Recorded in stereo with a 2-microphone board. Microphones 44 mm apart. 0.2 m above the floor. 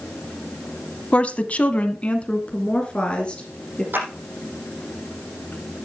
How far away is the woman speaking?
About 1.1 m.